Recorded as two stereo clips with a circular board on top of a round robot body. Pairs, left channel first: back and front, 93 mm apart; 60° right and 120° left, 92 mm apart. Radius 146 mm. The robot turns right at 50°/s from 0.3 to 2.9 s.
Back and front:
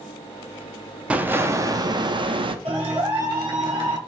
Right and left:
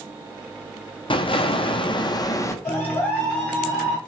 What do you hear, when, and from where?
1.1 s an explosion: 75° right, 0.7 m; by 2.5 s 5° right, 0.7 m
2.6 s a clap: straight ahead, 1.6 m; by 4.0 s 15° left, 1.6 m